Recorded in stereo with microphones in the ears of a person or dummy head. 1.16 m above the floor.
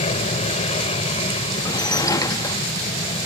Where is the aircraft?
30° left (ahead or behind); by 3.3 s 25° left (ahead or behind).